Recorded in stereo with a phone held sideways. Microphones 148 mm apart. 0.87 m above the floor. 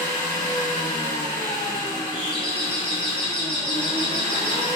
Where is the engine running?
55° left (ahead or behind), 1.2 m.